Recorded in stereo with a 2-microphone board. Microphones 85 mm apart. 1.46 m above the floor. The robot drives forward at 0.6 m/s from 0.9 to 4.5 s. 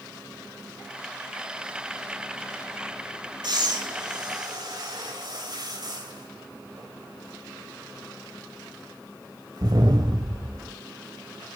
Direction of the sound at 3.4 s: 65° right (ahead or behind).